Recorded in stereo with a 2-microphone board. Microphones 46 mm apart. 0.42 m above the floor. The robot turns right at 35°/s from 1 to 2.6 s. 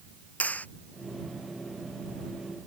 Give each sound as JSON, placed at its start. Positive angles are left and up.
{"t": 0.4, "sound": "a clap", "side_deg": 35}